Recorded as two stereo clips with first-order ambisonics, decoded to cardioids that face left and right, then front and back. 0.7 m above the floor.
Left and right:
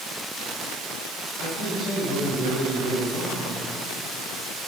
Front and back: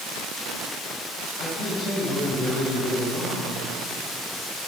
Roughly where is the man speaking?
Ahead left.